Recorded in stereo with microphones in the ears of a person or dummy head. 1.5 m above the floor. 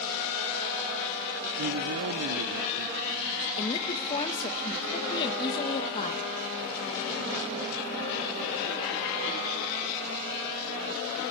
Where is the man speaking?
85° right, 0.6 m.